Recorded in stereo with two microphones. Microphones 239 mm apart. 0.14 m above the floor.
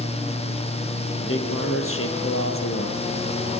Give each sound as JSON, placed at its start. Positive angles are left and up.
{"t": 1.2, "sound": "a man speaking", "side_deg": 60, "distance_m": 5.0}